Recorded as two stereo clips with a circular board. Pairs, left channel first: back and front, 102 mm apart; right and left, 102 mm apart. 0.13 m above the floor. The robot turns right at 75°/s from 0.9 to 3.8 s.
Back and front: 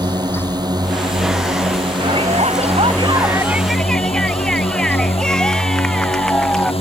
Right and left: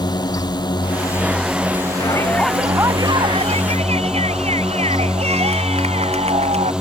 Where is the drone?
45° right; by 6.8 s 175° left.